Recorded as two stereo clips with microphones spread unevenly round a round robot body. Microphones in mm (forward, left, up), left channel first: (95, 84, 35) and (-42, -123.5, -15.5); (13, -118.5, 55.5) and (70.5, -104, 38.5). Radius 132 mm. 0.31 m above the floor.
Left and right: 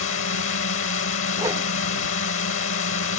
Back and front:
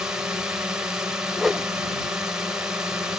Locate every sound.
0.0 s a drone: 65° left
1.4 s a whoosh: 60° right